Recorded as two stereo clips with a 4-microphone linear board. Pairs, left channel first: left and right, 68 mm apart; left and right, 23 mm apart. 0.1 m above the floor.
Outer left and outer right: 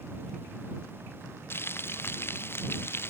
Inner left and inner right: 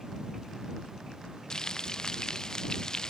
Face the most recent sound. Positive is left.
turn(degrees=35)  # may be behind; listen again after turning